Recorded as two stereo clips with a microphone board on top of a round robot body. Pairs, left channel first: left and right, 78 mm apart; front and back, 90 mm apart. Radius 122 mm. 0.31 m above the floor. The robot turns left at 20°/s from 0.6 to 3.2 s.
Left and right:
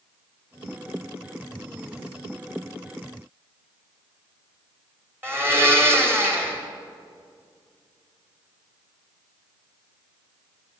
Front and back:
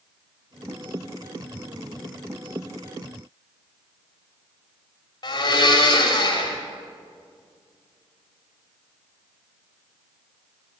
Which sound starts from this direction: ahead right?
A blender, at 5.2 s.